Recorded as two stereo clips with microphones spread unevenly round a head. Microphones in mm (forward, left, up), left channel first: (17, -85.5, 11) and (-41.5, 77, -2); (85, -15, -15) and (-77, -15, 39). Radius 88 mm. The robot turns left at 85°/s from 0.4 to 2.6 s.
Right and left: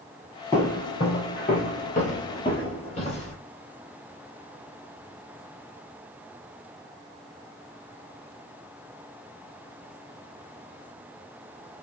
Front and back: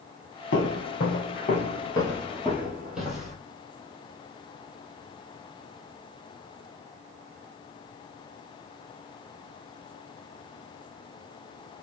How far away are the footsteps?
About 1.4 m.